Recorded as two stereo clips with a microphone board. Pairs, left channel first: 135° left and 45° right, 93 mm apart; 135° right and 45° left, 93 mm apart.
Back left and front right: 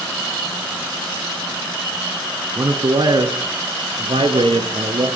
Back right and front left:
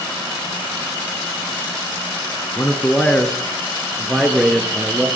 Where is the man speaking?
70° right, 1.7 m; by 5.1 s 35° right, 3 m.